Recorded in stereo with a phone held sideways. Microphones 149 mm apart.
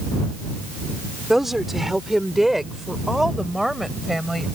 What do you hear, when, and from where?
1.3 s a woman speaking: centre (ahead or behind)